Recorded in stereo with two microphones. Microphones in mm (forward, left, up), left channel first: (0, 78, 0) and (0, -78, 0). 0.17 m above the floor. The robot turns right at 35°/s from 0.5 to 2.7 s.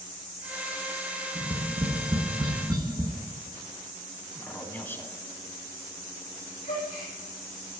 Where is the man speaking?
15° left (ahead or behind), 1.1 m.